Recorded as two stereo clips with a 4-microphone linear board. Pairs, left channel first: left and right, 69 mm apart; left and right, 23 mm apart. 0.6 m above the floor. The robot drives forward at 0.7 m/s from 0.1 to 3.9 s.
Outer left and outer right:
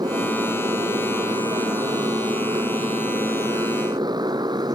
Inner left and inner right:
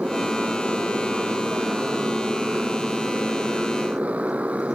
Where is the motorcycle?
80° right; by 4.8 s 85° right.